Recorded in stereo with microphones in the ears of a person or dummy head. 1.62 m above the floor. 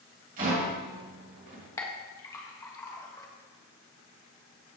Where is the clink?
15° left (ahead or behind), 1.4 m.